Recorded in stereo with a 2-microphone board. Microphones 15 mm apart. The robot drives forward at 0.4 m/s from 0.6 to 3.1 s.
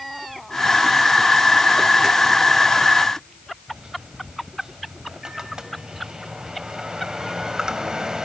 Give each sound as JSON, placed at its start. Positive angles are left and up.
{"t": 3.7, "sound": "a microwave", "side_deg": -55, "distance_m": 1.6}